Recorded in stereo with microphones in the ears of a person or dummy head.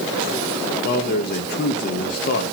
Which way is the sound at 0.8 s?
55° left (ahead or behind).